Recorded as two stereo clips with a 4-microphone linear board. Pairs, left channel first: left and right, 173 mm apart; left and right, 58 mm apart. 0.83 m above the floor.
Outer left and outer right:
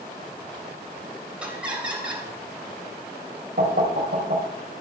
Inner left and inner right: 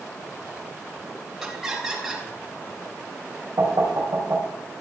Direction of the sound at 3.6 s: 80° right.